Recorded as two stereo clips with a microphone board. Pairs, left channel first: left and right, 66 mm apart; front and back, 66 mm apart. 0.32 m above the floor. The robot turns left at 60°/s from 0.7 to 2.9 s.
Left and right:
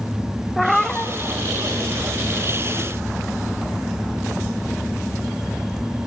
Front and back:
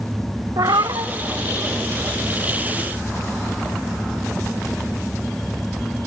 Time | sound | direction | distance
0.6 | a cat meowing | straight behind | 0.6 m